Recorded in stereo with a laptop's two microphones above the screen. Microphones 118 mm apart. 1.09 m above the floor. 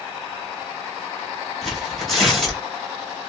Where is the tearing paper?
Centre (ahead or behind), 1.9 m.